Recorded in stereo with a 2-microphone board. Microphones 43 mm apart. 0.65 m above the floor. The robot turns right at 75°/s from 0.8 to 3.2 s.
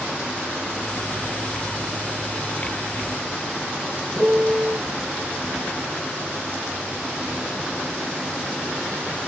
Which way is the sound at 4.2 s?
50° right (ahead or behind).